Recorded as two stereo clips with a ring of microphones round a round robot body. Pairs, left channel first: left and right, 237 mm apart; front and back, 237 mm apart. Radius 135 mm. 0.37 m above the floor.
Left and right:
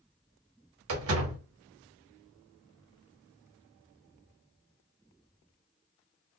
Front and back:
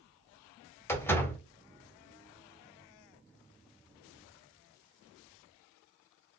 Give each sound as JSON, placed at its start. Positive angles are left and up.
{"t": 0.9, "sound": "a door slam", "azimuth_deg": -80, "distance_m": 1.2}